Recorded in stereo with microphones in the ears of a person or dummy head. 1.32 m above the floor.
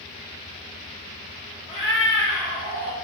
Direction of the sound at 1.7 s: 25° left (ahead or behind).